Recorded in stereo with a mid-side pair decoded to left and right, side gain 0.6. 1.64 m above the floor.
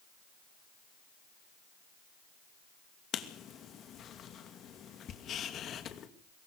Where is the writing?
45° left, 2.5 m.